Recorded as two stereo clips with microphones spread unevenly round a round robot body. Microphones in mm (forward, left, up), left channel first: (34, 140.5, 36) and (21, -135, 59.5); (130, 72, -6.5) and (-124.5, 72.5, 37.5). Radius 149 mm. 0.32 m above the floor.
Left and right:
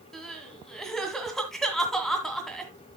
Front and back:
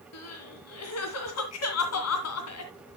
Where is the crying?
Straight ahead, 2 m.